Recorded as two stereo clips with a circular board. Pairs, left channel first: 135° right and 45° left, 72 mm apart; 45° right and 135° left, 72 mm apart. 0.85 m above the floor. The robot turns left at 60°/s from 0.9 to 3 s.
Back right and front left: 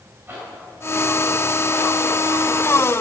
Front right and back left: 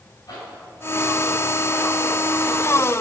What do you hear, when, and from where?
0.3 s a zipper: 15° right, 2.5 m; by 2.2 s 90° right, 2.5 m